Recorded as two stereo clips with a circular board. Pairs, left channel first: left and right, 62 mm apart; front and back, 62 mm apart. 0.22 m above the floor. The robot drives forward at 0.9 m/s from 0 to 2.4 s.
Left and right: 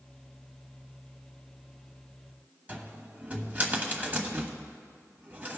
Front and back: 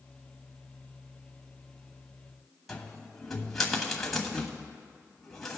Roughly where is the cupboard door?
Right.